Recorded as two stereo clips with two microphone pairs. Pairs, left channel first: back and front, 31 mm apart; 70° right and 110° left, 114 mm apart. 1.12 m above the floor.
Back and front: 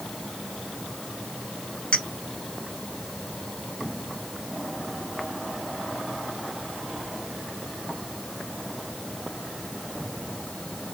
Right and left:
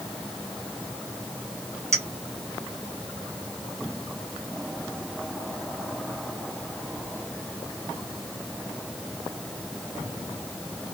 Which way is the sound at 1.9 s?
130° left.